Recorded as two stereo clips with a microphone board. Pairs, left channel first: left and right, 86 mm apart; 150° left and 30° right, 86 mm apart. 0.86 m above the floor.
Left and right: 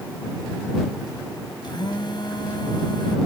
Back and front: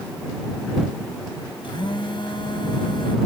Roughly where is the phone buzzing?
Behind left.